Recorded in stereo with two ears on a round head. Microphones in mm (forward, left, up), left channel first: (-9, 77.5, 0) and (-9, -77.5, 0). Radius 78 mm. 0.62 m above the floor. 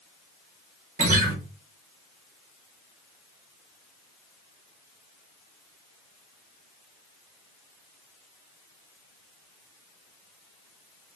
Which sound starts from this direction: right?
A guitar, at 1.0 s.